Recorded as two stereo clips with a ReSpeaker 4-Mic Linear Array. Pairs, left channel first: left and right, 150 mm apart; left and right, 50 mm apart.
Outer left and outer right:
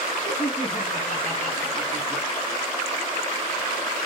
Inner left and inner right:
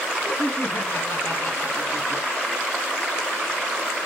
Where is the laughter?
55° left (ahead or behind), 2.5 m; by 2.2 s 65° left (ahead or behind), 3.5 m.